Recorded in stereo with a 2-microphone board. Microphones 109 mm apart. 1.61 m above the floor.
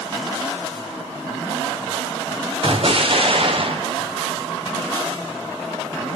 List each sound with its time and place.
2.6 s an explosion: 55° right (ahead or behind), 1.0 m